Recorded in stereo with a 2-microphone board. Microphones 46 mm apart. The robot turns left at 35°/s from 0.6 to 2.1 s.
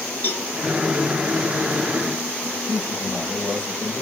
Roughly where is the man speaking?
Centre.